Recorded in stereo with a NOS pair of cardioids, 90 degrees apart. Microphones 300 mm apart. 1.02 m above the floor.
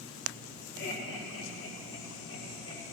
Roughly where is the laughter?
Ahead left.